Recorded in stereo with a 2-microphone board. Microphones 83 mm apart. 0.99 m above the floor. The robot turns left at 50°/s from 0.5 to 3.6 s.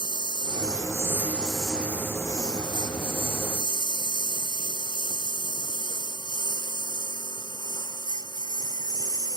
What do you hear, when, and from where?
0.0 s a lawn mower: 60° right (ahead or behind); by 9.4 s 50° left (ahead or behind)